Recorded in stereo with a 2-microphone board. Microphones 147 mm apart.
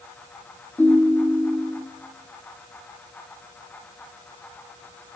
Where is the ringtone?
10° left (ahead or behind), 1.1 m.